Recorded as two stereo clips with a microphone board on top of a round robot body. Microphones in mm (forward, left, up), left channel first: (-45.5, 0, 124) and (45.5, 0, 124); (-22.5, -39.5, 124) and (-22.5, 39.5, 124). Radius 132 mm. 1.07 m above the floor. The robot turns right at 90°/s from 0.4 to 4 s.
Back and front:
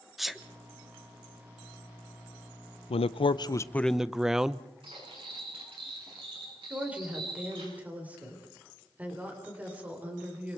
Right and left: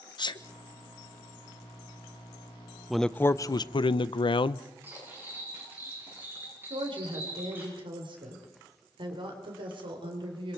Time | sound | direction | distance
0.2 | a sneeze | 90° right | 1.3 m
2.9 | a man speaking | 175° left | 0.6 m
4.8 | cutlery clinking | 25° left | 9 m
6.7 | a woman speaking | 75° left | 4 m